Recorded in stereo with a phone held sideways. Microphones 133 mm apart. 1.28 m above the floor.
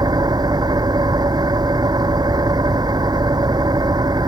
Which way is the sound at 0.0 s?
30° right (ahead or behind).